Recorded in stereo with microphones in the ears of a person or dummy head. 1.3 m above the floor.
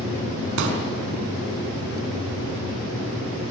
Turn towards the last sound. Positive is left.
turn(degrees=-75)  # may be behind; listen again after turning